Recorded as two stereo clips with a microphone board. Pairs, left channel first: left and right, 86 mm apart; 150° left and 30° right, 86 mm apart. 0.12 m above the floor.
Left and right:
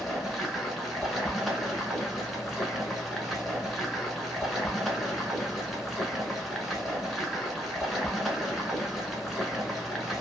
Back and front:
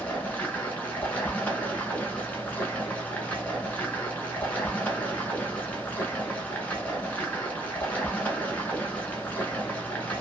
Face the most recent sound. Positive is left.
turn(degrees=180)